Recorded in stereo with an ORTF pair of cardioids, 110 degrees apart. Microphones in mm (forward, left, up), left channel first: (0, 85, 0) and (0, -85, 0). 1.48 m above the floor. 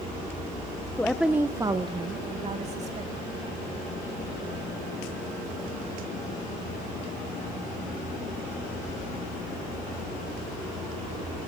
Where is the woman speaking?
10° left, 1.2 m; by 3.6 s 45° right, 4 m.